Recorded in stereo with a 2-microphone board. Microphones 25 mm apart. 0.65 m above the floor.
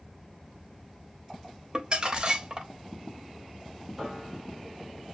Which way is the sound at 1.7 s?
40° right (ahead or behind).